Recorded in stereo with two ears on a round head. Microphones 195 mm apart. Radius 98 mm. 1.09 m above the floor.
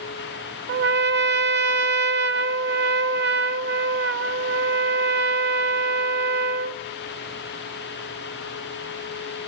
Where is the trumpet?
50° right (ahead or behind), 0.6 m.